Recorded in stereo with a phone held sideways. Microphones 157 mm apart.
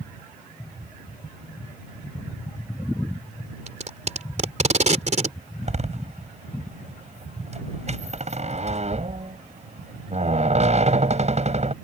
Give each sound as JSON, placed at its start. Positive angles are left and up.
{"t": 3.7, "sound": "tape being pulled", "side_deg": -50}
{"t": 5.6, "sound": "a door slam", "side_deg": -45}